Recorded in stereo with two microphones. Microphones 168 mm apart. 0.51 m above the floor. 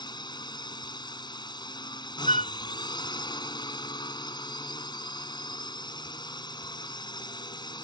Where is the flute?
40° left (ahead or behind).